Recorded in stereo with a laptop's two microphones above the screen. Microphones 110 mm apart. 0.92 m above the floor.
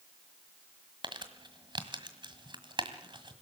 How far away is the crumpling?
About 1.7 m.